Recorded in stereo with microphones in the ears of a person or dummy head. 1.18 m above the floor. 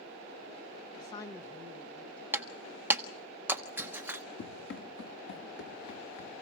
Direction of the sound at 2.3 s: 10° right (ahead or behind).